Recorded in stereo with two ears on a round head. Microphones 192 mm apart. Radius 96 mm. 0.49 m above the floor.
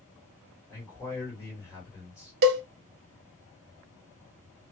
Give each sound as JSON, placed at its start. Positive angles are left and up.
{"t": 0.7, "sound": "a man speaking", "side_deg": 15, "distance_m": 1.5}
{"t": 2.4, "sound": "a cowbell", "side_deg": -50, "distance_m": 0.6}